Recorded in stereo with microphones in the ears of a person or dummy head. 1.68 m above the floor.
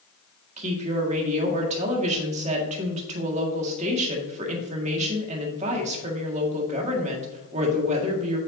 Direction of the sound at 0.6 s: 35° right (ahead or behind).